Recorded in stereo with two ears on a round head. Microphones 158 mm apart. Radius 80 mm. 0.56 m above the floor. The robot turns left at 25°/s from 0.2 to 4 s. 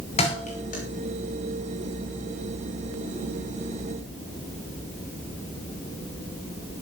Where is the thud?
35° left (ahead or behind), 8.5 m; by 0.8 s 50° left (ahead or behind), 8.5 m.